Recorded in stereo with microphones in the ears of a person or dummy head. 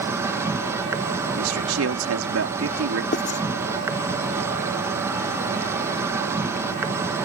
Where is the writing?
45° left (ahead or behind).